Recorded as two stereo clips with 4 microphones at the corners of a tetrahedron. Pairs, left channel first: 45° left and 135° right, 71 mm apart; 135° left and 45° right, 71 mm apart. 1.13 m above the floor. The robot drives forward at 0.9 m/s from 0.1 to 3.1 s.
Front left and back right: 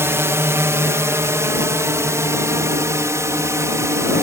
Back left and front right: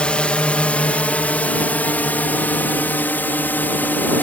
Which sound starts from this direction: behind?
A drone, at 0.0 s.